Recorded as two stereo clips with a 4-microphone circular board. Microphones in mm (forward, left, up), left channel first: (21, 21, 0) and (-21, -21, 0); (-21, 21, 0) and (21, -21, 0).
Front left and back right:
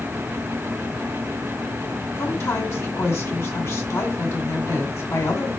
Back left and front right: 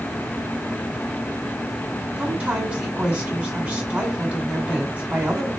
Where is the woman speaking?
20° left, 2.5 m.